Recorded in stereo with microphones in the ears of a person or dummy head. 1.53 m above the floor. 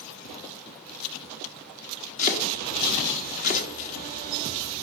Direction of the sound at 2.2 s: 45° left (ahead or behind).